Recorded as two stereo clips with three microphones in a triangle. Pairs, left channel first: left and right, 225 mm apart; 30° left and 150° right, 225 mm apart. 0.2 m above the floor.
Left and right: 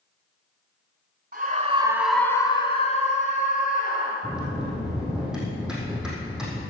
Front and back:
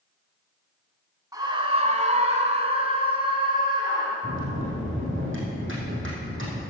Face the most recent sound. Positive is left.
turn(degrees=-175)